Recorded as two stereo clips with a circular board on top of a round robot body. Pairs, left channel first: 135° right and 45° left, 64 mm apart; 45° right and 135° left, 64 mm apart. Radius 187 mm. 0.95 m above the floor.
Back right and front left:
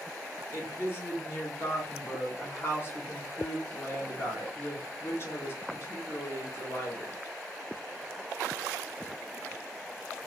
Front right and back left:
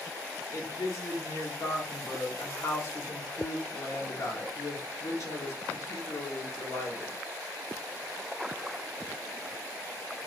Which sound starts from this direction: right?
A woman speaking, at 0.5 s.